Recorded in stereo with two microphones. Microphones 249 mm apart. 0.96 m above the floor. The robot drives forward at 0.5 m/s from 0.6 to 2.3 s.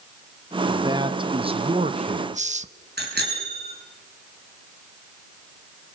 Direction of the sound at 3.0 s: 45° right (ahead or behind).